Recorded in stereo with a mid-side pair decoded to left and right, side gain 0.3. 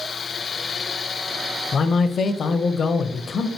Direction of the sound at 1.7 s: 65° left.